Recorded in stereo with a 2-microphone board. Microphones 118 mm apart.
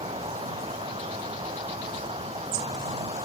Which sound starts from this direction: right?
An insect, at 0.0 s.